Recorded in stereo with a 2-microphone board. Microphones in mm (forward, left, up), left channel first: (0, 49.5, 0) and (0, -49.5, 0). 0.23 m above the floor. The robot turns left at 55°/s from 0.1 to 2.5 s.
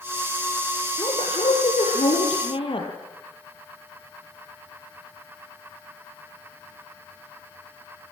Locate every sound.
1.0 s a woman speaking: 140° left, 5.5 m; by 2.9 s 55° left, 5.5 m